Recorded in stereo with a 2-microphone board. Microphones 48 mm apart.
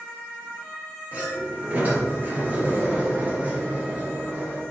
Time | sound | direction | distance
1.1 | a sliding door | 35° right (ahead or behind) | 2 m